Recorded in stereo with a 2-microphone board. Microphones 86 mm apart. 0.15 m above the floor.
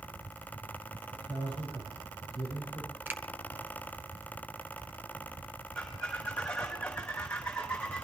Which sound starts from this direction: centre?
A squeak, at 5.8 s.